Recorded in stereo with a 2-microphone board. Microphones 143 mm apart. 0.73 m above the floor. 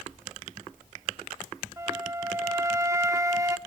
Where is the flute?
25° right (ahead or behind), 0.5 m.